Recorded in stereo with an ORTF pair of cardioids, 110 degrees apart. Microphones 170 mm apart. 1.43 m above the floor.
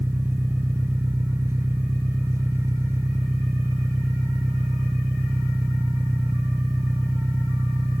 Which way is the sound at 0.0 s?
15° right.